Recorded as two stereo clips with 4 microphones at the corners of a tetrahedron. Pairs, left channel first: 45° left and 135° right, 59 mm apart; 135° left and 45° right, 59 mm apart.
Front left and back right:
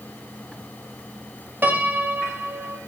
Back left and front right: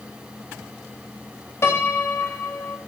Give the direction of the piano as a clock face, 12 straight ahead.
6 o'clock.